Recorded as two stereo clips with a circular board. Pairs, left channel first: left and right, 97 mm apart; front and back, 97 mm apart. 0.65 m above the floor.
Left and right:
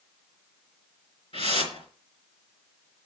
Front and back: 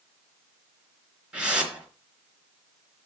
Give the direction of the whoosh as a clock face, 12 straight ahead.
9 o'clock.